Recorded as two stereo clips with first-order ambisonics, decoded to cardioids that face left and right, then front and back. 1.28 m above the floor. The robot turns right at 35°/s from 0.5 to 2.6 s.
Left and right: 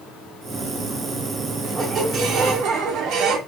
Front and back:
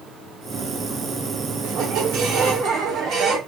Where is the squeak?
165° right, 0.8 m; by 3.4 s 130° right, 0.8 m.